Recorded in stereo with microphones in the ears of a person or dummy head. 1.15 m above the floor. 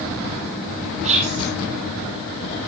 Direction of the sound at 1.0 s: 40° right (ahead or behind).